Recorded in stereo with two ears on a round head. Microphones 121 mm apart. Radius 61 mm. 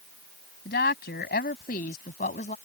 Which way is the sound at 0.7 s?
85° left.